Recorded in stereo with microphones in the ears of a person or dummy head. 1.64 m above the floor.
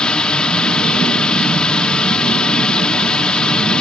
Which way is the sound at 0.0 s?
5° left (ahead or behind).